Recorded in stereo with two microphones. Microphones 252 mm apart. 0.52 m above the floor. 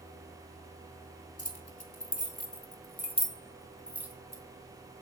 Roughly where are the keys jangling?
Left.